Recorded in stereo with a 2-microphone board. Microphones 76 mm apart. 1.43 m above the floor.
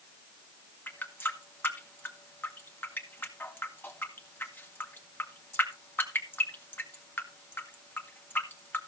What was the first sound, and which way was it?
A running tap, 25° left (ahead or behind).